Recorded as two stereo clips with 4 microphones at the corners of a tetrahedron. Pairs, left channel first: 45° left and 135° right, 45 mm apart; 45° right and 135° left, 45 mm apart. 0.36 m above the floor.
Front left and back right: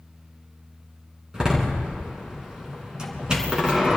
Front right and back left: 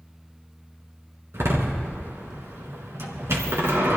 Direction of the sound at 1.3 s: 155° left.